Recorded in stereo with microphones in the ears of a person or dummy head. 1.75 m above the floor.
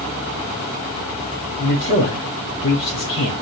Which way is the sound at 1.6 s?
35° left (ahead or behind).